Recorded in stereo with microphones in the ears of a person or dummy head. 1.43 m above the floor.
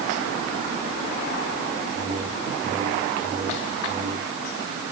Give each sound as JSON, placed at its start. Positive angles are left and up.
{"t": 1.9, "sound": "a whoosh", "side_deg": -15, "distance_m": 2.5}